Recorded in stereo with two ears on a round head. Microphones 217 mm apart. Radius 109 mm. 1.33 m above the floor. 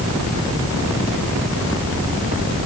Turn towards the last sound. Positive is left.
No sound to turn to.